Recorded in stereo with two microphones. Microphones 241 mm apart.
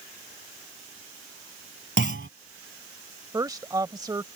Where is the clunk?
55° right (ahead or behind).